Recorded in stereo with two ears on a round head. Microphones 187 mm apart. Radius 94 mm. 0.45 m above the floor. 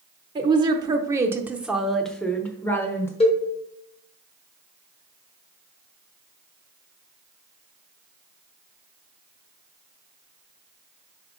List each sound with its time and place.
0.3 s a woman speaking: 20° right (ahead or behind), 0.9 m; by 3.1 s 10° left (ahead or behind), 1.2 m
3.2 s a cowbell: 30° left (ahead or behind), 1.5 m